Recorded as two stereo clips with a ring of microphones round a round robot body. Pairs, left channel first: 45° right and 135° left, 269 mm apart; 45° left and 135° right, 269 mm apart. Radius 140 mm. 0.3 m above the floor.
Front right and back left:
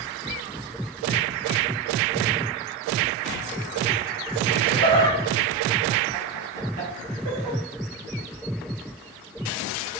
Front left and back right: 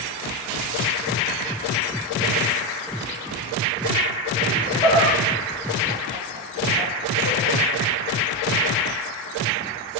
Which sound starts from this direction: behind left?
Laughter, at 4.5 s.